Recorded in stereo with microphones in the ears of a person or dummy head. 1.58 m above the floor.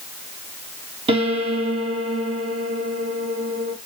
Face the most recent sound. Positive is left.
turn(degrees=-25)  # may be behind; listen again after turning